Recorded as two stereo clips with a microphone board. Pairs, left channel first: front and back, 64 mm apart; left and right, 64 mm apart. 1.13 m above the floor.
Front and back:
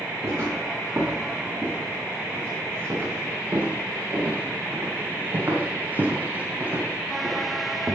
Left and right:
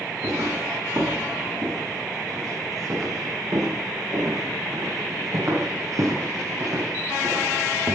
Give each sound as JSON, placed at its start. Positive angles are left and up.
{"t": 0.2, "sound": "footsteps", "azimuth_deg": -125, "distance_m": 7.0}